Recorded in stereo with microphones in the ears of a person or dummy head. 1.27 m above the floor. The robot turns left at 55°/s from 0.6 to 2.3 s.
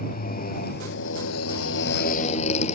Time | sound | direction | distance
0.0 | a motorcycle | 130° left | ?